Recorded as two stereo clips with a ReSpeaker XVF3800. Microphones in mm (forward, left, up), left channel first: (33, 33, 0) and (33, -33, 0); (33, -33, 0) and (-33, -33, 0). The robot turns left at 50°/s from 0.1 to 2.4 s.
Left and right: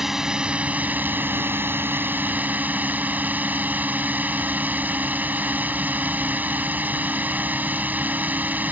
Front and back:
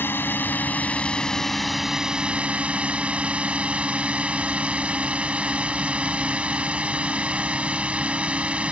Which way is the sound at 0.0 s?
10° right.